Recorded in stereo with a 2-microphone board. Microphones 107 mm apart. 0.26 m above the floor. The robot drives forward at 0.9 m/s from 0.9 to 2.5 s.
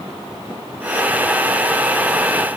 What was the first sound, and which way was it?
Only background noise.